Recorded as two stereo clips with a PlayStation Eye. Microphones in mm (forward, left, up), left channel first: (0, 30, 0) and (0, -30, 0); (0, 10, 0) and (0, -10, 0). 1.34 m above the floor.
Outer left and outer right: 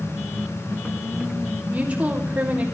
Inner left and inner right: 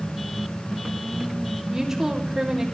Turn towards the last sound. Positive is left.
turn(degrees=-20)  # may be behind; listen again after turning